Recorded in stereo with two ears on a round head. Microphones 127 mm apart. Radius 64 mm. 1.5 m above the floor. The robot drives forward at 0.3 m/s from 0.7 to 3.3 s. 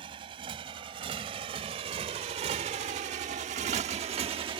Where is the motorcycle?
35° right (ahead or behind).